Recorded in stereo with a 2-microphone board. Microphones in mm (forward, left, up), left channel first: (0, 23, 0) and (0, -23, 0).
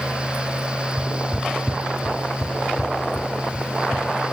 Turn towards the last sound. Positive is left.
turn(degrees=35)  # may be behind; listen again after turning